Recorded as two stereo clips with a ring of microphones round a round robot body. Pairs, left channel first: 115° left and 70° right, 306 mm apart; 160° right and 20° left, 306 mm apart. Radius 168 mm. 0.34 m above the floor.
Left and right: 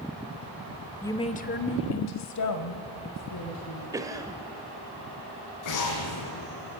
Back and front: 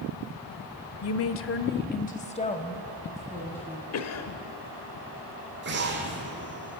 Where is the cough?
145° right, 1.6 m.